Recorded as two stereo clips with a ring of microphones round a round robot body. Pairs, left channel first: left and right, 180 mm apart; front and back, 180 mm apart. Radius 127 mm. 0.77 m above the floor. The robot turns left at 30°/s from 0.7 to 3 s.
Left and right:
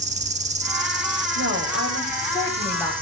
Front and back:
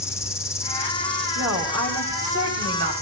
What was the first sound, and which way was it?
An insect, 70° right.